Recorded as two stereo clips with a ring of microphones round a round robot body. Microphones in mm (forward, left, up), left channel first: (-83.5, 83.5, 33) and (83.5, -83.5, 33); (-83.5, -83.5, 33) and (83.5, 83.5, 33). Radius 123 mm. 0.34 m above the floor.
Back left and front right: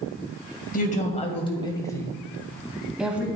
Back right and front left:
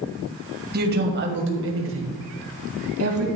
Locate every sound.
0.7 s a woman speaking: 85° left, 2.0 m; by 3.2 s 40° left, 2.5 m